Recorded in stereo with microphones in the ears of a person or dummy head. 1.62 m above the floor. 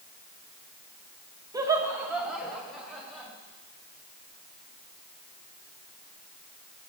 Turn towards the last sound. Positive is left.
turn(degrees=5)  # may be behind; listen again after turning